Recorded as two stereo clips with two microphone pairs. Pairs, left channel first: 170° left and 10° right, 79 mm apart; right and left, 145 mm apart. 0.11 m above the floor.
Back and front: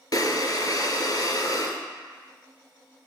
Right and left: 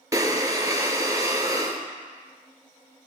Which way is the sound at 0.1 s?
155° left.